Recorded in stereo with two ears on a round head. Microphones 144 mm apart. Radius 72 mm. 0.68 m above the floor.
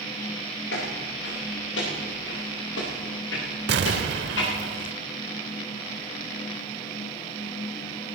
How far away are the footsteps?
About 7.5 m.